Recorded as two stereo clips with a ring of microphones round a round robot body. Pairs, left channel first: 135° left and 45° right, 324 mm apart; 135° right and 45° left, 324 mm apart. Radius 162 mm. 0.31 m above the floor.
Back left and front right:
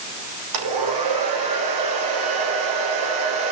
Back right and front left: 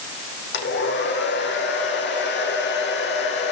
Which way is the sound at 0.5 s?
75° right.